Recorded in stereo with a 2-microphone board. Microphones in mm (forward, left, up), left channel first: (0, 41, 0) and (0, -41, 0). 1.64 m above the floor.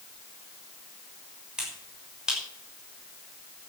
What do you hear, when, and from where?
1.6 s a finger snap: 10° right (ahead or behind), 6 m